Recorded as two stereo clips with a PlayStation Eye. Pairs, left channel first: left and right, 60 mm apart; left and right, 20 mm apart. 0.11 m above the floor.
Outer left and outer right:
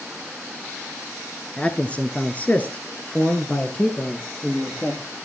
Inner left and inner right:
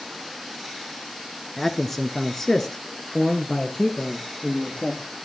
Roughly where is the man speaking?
Centre.